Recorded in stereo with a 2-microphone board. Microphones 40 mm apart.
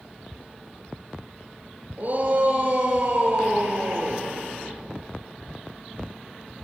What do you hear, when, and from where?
2.0 s a shout: 40° right (ahead or behind), 5 m; by 4.3 s 50° right (ahead or behind), 6.5 m